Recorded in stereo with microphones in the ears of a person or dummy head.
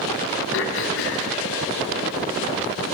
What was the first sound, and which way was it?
Throat clearing, 65° left (ahead or behind).